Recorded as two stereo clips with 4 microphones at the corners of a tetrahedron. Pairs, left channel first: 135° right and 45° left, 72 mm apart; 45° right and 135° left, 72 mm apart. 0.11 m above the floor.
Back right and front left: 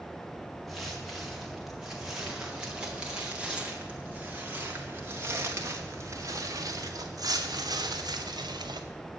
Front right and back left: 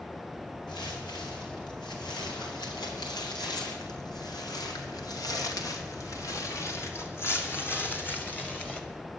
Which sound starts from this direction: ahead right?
Footsteps, at 0.7 s.